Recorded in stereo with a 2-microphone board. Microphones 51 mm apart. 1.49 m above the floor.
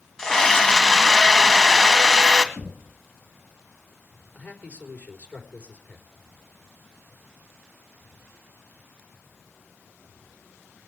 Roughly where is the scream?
Centre.